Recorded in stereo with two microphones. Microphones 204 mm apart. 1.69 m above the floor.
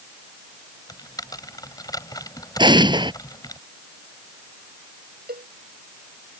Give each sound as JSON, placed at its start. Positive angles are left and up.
{"t": 0.9, "sound": "typing on a keyboard", "side_deg": 20}
{"t": 2.6, "sound": "an explosion", "side_deg": -20}
{"t": 5.3, "sound": "a cowbell", "side_deg": -50}